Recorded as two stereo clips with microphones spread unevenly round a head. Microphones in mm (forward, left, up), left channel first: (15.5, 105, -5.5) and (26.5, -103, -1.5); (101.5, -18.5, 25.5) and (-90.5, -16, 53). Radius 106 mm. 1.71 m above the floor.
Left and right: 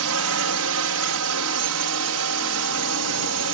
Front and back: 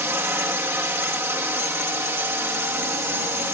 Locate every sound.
0.0 s a drone: 100° right